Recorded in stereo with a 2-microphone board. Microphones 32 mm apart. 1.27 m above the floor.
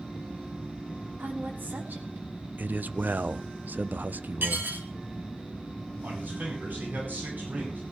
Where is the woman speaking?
85° right, 3.5 m; by 2.5 s 65° right (ahead or behind), 4 m.